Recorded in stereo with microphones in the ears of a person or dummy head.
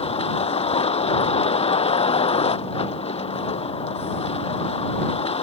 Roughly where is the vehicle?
Left.